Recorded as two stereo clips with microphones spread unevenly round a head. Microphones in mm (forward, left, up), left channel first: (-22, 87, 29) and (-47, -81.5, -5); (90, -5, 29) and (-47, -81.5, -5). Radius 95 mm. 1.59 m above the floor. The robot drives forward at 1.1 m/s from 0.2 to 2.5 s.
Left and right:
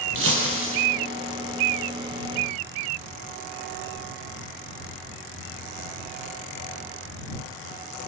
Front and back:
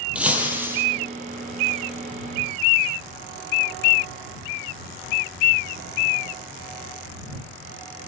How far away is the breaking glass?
About 6.5 m.